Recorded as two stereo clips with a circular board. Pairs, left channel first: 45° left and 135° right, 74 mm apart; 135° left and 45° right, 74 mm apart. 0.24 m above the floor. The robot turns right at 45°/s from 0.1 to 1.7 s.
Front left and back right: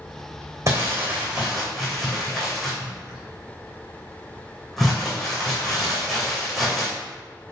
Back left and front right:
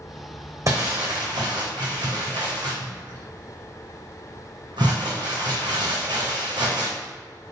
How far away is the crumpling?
About 3 m.